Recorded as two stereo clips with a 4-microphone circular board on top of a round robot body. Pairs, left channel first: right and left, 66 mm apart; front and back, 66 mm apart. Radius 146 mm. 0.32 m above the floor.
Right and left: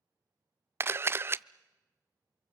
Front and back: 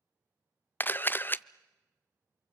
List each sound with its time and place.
0.8 s a camera shutter: 50° left, 0.5 m